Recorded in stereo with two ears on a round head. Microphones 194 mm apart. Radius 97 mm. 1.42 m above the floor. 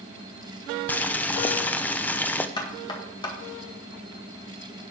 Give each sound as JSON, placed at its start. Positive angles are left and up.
{"t": 0.9, "sound": "boiling", "side_deg": 10, "distance_m": 0.6}
{"t": 2.6, "sound": "knocking", "side_deg": 20, "distance_m": 1.8}